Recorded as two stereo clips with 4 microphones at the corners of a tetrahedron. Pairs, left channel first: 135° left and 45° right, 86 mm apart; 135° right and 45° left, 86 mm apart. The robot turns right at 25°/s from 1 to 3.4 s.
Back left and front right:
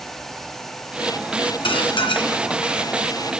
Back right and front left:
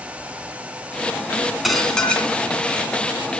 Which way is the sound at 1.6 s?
135° left.